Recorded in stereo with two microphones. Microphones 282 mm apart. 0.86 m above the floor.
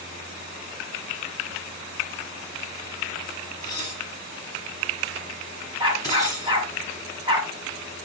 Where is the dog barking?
15° right (ahead or behind), 3 m.